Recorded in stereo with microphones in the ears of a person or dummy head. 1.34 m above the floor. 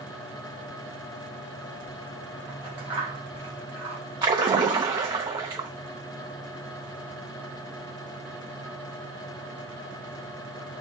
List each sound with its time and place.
2.5 s scissors: 30° right (ahead or behind), 1.2 m
4.2 s a splash: 20° right (ahead or behind), 0.6 m